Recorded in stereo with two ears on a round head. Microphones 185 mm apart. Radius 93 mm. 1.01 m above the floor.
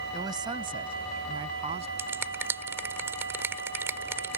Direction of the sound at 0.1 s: 20° right (ahead or behind).